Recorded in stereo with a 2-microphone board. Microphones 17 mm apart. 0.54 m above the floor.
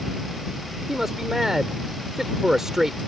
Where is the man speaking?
25° right (ahead or behind).